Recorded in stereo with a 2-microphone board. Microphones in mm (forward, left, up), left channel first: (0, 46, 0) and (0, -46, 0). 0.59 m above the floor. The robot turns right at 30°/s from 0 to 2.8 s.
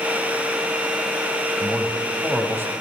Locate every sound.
1.6 s a man speaking: 175° left, 3 m; by 2.7 s 150° right, 3 m